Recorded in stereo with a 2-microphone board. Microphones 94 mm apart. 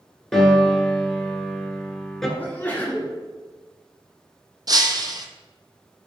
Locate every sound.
0.3 s a piano: 5° left (ahead or behind), 0.8 m
2.4 s a sneeze: 15° left (ahead or behind), 1.8 m
4.7 s breaking glass: 45° right (ahead or behind), 0.5 m